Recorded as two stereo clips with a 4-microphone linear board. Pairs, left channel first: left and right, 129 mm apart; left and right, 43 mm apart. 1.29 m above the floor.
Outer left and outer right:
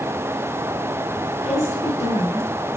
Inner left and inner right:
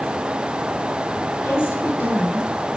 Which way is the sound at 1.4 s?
65° left (ahead or behind).